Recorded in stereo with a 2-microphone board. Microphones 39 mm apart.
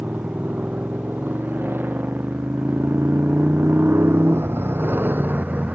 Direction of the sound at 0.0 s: 50° right (ahead or behind).